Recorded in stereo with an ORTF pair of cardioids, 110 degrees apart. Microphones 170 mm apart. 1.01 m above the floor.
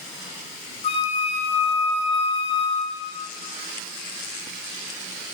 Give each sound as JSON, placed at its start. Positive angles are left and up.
{"t": 0.8, "sound": "a flute", "azimuth_deg": 40, "distance_m": 0.7}